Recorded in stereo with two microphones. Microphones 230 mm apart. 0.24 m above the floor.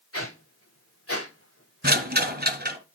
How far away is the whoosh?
About 6.5 m.